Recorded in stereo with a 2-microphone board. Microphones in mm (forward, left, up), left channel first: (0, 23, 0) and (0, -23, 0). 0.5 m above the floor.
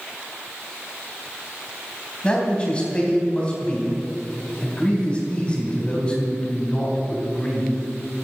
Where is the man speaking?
25° left (ahead or behind), 3 m.